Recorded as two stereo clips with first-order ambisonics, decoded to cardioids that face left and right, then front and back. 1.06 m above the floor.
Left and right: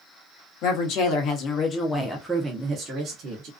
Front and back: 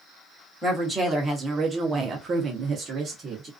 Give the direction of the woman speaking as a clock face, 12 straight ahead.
9 o'clock.